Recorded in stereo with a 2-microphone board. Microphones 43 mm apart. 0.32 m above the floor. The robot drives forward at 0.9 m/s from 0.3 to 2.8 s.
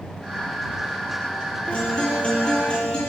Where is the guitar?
25° left (ahead or behind), 7.5 m.